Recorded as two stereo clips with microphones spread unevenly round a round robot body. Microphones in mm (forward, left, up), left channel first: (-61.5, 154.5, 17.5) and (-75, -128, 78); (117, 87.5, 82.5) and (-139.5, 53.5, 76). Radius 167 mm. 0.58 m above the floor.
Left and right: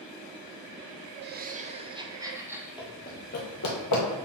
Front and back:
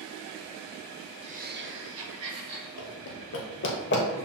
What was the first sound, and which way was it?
Laughter, 135° right.